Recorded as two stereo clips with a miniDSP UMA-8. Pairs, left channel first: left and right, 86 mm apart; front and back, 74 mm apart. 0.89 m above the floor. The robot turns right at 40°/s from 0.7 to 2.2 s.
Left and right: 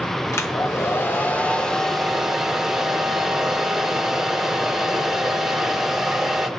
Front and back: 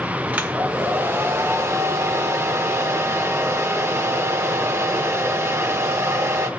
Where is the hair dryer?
130° left, 0.9 m; by 6.5 s 170° right, 0.9 m.